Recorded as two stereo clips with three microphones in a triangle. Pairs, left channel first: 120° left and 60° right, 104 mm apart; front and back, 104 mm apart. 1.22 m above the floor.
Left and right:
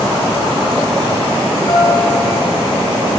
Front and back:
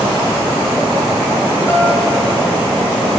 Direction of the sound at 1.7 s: 70° left.